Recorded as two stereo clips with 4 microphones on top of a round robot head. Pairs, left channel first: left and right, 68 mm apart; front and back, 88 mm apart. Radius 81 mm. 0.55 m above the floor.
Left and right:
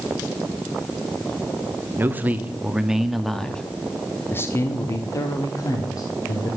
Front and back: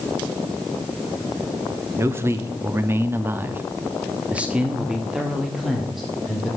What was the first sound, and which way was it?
A man speaking, 135° right.